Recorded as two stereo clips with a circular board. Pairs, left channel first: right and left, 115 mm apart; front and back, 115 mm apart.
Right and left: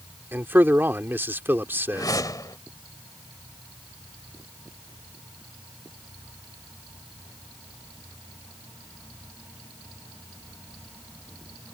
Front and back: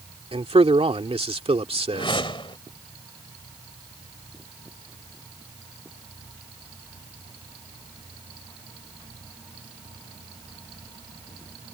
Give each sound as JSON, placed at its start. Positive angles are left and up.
{"t": 0.3, "sound": "a man speaking", "azimuth_deg": 160}
{"t": 1.9, "sound": "a whoosh", "azimuth_deg": -35}